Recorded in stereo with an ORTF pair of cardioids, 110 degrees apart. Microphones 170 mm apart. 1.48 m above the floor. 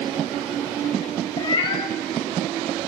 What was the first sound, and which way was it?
A cat meowing, 30° left.